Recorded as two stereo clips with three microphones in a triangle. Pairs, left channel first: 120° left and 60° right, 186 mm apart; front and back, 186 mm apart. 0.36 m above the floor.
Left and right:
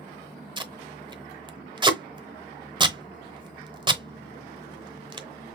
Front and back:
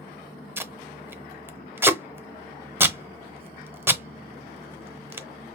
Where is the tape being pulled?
105° right, 0.7 m.